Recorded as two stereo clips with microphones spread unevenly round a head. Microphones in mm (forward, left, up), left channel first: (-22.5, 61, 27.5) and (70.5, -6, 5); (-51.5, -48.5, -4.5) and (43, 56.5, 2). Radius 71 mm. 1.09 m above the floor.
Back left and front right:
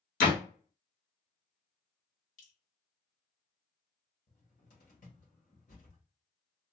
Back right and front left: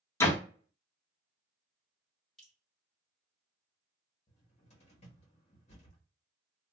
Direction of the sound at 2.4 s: 140° left.